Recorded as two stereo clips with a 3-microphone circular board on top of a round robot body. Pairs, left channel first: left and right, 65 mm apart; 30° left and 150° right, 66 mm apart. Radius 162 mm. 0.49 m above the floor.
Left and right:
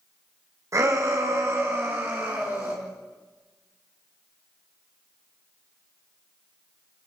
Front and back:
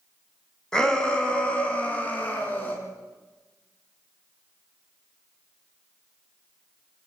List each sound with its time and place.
0.7 s a shout: 50° right, 4.5 m; by 2.8 s 30° right, 6.5 m